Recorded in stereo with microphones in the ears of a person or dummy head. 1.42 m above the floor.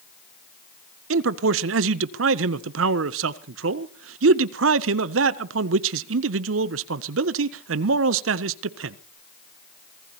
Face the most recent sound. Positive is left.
turn(degrees=-55)  # may be behind; listen again after turning